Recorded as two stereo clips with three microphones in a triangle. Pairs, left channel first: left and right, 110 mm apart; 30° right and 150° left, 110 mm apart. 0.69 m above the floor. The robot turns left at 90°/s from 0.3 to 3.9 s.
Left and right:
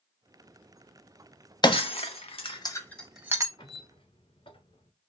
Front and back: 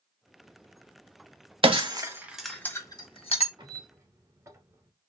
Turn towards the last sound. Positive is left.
turn(degrees=95)